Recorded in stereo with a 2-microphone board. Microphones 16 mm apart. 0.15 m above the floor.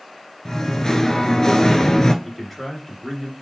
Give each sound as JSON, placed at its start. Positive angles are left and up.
{"t": 0.5, "sound": "singing", "side_deg": 35, "distance_m": 0.7}
{"t": 2.2, "sound": "a man speaking", "side_deg": 10, "distance_m": 1.9}